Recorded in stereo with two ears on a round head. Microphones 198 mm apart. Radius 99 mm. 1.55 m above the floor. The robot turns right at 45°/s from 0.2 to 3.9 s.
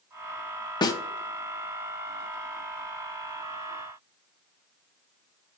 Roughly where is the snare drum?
Left.